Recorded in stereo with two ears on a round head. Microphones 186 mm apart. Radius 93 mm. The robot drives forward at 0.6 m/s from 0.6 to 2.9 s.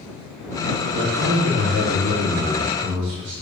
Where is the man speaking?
55° right (ahead or behind), 2.5 m; by 3.3 s 40° right (ahead or behind), 3.5 m.